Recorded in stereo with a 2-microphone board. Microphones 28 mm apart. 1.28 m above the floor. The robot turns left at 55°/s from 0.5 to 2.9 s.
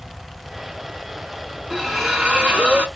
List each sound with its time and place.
1.7 s a splash: straight ahead, 2.5 m; by 2.9 s 60° right, 2.5 m